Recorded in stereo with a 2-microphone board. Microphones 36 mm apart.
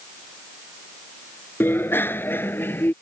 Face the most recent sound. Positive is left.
turn(degrees=75)  # may be behind; listen again after turning